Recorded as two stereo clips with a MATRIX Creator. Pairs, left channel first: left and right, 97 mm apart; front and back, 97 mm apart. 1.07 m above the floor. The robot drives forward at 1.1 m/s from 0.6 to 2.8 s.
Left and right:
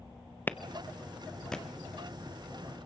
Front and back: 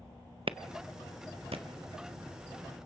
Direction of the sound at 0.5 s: 160° left.